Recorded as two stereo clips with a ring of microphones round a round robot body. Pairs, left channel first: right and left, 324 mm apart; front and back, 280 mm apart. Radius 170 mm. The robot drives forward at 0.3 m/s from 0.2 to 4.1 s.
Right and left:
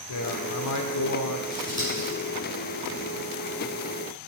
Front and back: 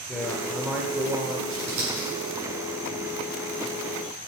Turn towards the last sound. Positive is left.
turn(degrees=-170)